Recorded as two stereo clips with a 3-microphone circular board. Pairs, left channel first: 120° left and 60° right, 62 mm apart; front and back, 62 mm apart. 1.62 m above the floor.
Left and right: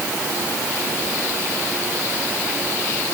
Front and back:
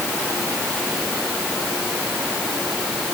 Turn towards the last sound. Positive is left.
No sound to turn to.